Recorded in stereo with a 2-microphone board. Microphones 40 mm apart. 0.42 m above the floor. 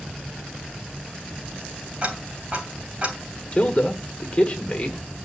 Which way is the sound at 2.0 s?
30° right (ahead or behind).